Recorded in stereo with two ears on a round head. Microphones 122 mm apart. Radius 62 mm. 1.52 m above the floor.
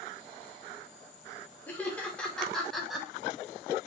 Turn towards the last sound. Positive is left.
turn(degrees=0)  # may be behind; listen again after turning